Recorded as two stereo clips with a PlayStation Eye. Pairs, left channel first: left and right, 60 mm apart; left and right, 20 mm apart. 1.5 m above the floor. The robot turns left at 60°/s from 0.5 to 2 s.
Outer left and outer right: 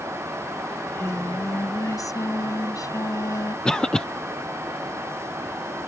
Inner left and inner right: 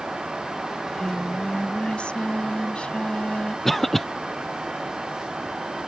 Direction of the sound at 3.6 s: 15° left (ahead or behind).